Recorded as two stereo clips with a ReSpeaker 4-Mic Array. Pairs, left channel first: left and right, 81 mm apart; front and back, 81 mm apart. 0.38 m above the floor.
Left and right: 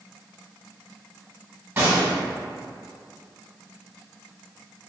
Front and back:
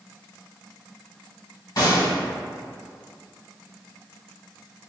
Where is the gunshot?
30° right, 1.5 m.